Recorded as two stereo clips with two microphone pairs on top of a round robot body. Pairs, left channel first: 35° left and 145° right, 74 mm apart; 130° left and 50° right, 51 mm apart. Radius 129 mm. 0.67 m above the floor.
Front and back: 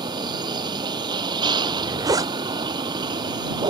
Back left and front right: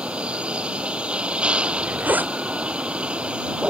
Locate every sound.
0.0 s a vehicle: 120° right
1.6 s a zipper: 105° right